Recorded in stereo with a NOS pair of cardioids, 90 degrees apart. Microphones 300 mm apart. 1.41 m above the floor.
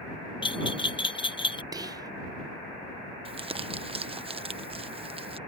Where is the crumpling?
20° right.